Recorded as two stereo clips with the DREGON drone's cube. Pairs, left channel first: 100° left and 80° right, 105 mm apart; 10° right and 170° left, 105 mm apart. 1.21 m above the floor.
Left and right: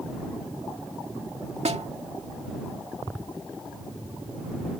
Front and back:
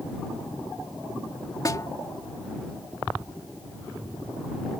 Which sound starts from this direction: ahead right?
A snare drum, at 1.6 s.